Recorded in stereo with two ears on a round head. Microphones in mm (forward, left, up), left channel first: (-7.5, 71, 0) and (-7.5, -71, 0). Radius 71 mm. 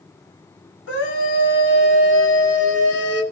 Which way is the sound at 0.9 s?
85° left.